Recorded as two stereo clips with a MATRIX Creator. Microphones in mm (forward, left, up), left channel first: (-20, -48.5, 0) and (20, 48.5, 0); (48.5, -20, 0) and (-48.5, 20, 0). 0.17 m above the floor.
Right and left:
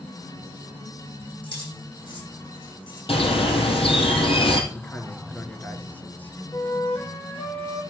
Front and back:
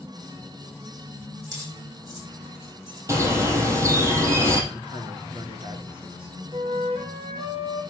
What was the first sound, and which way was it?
Keys jangling, 150° right.